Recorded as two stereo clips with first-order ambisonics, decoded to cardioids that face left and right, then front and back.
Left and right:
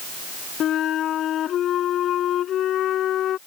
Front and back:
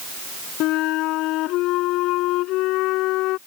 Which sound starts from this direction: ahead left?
A flute, at 0.6 s.